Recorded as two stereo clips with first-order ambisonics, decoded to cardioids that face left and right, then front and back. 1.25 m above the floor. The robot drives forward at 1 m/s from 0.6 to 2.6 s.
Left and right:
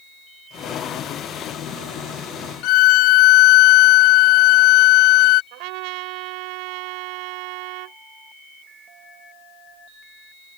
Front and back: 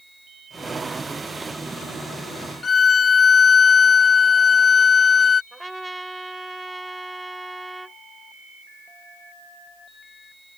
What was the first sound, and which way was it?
A violin, 70° left.